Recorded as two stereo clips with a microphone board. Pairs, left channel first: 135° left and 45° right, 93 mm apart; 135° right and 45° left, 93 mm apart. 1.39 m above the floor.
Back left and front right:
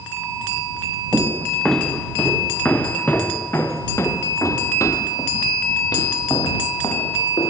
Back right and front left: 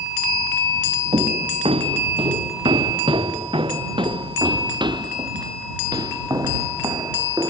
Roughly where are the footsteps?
Ahead left.